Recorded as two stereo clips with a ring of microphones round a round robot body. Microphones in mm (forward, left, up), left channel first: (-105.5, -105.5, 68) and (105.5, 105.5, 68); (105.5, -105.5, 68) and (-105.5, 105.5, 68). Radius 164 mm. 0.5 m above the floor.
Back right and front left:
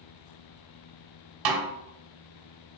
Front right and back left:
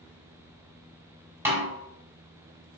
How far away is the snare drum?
About 1.2 m.